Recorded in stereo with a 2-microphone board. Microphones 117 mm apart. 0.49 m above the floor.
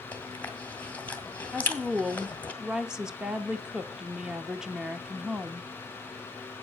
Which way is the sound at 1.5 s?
5° right (ahead or behind).